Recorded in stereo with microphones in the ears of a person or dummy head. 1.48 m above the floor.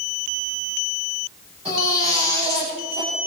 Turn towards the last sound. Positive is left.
turn(degrees=-35)  # may be behind; listen again after turning